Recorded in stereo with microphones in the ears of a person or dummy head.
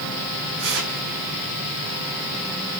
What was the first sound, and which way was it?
Tearing paper, 60° right (ahead or behind).